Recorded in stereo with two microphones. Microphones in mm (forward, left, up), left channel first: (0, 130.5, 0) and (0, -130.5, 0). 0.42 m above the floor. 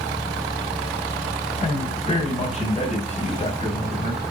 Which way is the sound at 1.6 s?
25° left (ahead or behind).